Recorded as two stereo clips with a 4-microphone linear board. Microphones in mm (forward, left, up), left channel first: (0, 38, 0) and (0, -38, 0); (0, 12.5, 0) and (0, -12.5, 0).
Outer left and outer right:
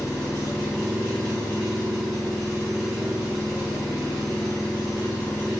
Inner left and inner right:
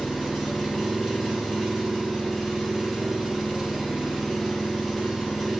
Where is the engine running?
5° right (ahead or behind), 1.8 m.